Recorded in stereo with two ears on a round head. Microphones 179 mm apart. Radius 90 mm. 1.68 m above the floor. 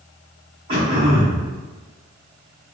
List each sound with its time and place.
0.7 s throat clearing: 30° right (ahead or behind), 1.6 m